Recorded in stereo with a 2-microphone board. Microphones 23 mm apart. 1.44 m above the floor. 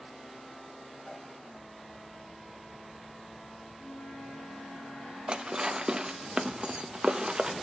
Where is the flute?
55° left (ahead or behind), 9.5 m.